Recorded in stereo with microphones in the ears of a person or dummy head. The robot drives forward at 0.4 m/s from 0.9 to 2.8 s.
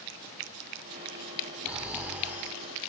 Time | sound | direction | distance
1.6 | snoring | 10° right (ahead or behind) | 1.3 m